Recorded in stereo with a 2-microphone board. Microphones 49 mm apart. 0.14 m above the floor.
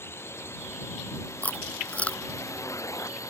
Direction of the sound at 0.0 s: 55° left (ahead or behind).